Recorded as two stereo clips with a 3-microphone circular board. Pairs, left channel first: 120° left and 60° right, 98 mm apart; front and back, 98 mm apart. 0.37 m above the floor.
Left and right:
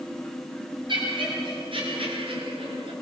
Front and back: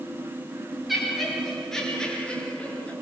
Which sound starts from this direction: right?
Laughter, at 0.9 s.